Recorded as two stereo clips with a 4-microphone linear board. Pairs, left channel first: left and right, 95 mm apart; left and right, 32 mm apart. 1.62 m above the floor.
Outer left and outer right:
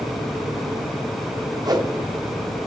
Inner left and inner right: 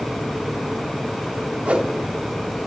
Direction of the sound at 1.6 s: 40° right (ahead or behind).